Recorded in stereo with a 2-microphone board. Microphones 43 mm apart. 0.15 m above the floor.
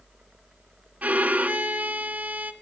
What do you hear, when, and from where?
1.0 s a violin: 40° right (ahead or behind), 0.6 m